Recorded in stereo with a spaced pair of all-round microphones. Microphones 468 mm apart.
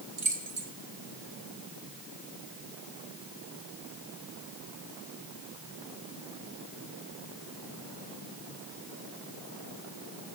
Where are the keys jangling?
80° right, 0.9 m.